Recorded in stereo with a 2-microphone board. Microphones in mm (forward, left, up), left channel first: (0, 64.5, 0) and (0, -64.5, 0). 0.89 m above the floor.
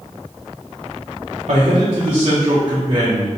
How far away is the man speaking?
About 0.7 m.